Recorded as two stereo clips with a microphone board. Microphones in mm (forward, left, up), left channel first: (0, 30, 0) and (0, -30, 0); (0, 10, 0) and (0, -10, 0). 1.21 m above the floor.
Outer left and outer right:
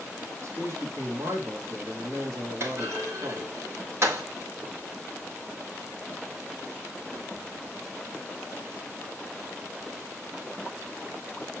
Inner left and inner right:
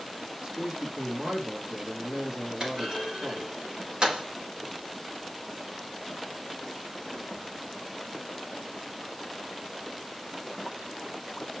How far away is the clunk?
About 4.5 m.